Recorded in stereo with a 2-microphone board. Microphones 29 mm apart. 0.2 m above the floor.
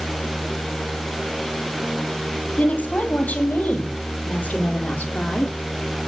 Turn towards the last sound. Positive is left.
turn(degrees=75)  # may be behind; listen again after turning